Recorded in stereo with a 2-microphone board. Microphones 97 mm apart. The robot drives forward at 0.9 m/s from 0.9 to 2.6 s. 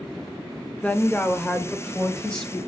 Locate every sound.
0.8 s a woman speaking: 15° left (ahead or behind), 0.9 m; by 2.6 s 5° left (ahead or behind), 2.5 m